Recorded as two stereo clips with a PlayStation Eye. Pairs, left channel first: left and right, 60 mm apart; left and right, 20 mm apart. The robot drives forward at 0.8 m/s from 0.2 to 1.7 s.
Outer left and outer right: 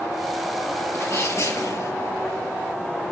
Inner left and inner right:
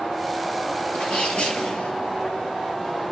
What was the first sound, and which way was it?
A sneeze, 50° left (ahead or behind).